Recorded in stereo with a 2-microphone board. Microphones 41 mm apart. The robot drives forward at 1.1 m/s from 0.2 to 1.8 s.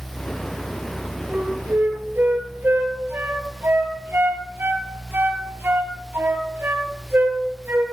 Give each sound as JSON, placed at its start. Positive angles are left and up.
{"t": 1.3, "sound": "a flute", "side_deg": -55, "distance_m": 3.5}